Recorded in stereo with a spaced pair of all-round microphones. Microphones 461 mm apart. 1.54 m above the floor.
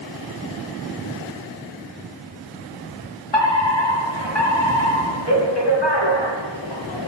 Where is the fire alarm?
60° left (ahead or behind), 3 m.